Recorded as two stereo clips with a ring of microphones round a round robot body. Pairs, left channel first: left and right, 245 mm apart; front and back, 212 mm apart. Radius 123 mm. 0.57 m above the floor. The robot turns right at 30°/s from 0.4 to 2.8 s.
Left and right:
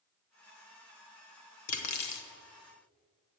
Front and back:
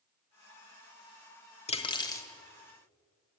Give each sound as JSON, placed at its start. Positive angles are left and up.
{"t": 1.7, "sound": "cutlery clinking", "azimuth_deg": 60, "distance_m": 1.3}